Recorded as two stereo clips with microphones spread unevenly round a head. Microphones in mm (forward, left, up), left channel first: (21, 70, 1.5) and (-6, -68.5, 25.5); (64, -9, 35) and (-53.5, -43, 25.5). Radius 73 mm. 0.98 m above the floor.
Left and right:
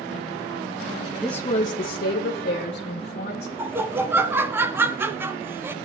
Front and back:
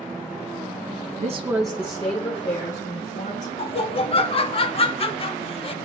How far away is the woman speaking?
About 0.6 m.